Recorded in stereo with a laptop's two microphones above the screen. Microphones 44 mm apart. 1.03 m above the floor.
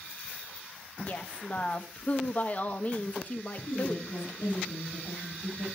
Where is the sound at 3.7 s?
80° left, 7 m.